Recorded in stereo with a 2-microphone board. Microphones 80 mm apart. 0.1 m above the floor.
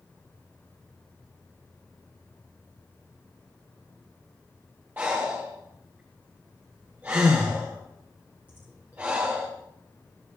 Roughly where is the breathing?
Right.